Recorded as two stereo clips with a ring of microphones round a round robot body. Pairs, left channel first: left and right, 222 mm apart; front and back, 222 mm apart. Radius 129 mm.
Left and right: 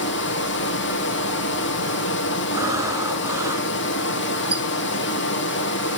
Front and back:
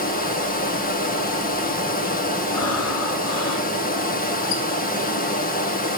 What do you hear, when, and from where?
0.0 s running water: 50° left, 2 m
2.5 s breathing: 15° right, 2.5 m
4.5 s a squeak: 5° right, 1.8 m